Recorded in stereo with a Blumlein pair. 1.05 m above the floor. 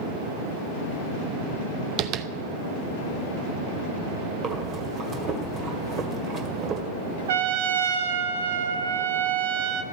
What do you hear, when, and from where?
2.0 s tapping: 30° right, 0.6 m
4.4 s breathing: 25° right, 1.8 m
7.3 s a trumpet: 60° right, 1.0 m